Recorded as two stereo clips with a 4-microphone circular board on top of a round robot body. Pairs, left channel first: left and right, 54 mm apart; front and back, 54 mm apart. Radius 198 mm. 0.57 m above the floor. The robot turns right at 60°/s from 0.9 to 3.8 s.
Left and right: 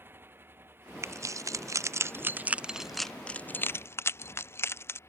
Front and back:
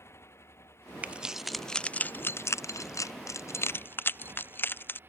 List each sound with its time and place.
0.0 s a motorcycle: 40° right; by 5.1 s 130° left
1.0 s keys jangling: 115° right; by 5.0 s 50° left